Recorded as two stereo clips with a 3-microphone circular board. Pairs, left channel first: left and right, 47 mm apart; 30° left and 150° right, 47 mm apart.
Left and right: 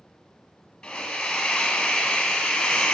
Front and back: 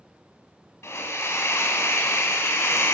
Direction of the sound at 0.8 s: 15° left.